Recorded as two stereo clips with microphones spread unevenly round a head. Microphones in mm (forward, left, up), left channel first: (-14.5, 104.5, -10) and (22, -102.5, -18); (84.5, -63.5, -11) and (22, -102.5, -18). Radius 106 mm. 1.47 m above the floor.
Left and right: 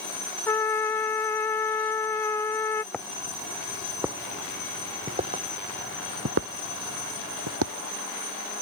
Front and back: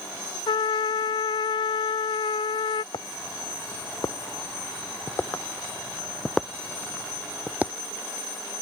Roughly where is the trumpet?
Ahead.